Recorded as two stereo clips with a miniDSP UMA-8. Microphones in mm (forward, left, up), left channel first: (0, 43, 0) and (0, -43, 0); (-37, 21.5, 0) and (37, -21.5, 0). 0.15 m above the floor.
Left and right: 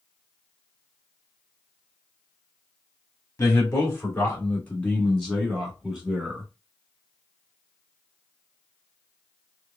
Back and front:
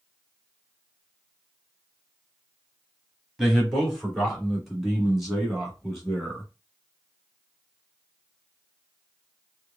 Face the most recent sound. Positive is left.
turn(degrees=-130)